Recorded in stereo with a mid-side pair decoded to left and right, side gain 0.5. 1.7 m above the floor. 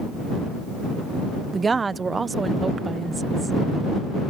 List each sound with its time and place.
1.5 s a woman speaking: 30° right